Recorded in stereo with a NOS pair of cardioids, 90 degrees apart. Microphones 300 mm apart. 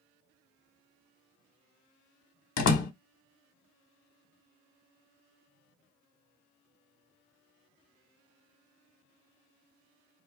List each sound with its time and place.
2.6 s a door slam: 65° left, 1.0 m